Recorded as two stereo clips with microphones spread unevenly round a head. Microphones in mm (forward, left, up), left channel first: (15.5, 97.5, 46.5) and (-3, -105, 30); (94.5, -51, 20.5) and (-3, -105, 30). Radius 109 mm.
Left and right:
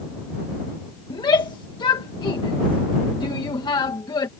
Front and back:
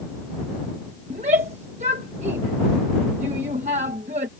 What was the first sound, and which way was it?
A shout, 155° left.